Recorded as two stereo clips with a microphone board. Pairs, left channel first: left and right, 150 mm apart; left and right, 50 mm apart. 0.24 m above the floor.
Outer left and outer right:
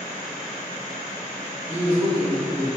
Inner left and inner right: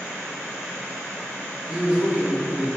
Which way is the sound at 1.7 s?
20° right (ahead or behind).